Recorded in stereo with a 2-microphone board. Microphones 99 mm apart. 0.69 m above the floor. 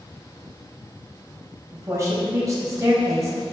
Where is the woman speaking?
30° right (ahead or behind), 4 m.